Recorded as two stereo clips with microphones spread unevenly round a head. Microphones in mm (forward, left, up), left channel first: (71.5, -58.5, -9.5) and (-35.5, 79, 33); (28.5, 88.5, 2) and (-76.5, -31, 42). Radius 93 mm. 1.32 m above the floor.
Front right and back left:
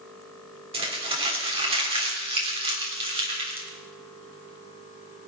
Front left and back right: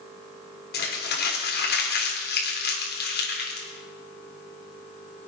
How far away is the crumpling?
About 3.5 m.